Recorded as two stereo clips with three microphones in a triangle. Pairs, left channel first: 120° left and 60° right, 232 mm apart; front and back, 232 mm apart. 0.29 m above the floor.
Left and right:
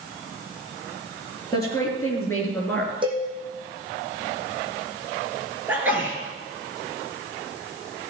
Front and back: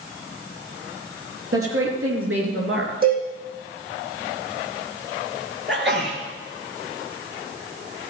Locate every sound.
1.5 s a woman speaking: 165° right, 5 m; by 2.9 s 155° right, 4 m
3.0 s a cowbell: 130° right, 5 m
5.7 s a sneeze: 140° right, 4.5 m